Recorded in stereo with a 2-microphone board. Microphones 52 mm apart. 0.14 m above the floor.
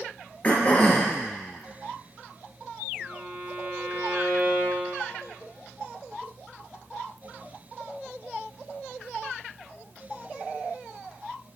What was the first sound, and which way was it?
Throat clearing, 30° left (ahead or behind).